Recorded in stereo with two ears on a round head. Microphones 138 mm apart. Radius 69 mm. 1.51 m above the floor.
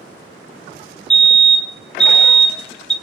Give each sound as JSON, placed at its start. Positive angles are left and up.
{"t": 1.1, "sound": "a fire alarm", "side_deg": 5, "distance_m": 1.6}